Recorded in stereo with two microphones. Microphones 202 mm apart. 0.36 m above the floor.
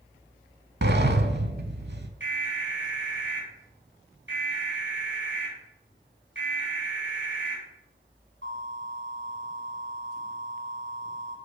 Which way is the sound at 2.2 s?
65° right (ahead or behind).